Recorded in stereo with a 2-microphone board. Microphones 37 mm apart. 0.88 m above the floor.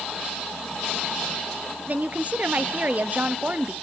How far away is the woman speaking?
About 0.9 m.